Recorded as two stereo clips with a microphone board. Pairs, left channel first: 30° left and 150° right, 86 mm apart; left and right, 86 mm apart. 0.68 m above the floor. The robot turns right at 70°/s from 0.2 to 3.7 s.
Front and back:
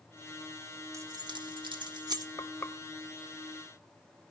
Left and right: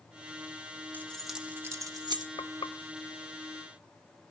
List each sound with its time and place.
0.9 s keys jangling: 160° left, 1.2 m; by 2.3 s 105° right, 1.2 m
2.4 s frying: 75° left, 0.6 m; by 2.8 s 105° left, 0.6 m